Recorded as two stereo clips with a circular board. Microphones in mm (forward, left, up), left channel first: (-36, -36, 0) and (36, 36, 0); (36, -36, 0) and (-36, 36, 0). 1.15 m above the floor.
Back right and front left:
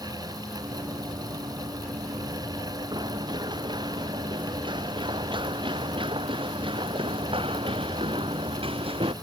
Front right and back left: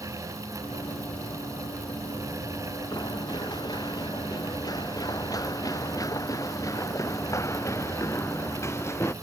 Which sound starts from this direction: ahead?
Running footsteps, at 0.6 s.